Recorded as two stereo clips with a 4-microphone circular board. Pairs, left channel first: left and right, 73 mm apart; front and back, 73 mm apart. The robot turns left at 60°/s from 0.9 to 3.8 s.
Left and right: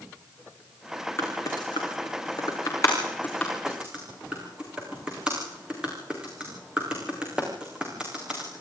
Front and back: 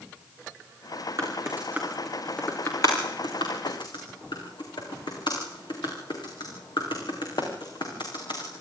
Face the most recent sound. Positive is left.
turn(degrees=-15)